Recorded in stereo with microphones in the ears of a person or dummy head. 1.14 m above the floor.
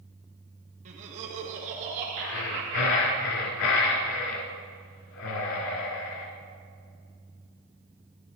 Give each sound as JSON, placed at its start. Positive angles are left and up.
{"t": 0.8, "sound": "laughter", "side_deg": -40, "distance_m": 1.5}
{"t": 2.2, "sound": "breathing", "side_deg": 80, "distance_m": 1.8}